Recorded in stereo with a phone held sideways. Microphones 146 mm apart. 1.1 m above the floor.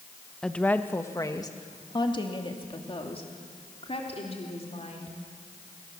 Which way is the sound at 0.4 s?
5° left (ahead or behind).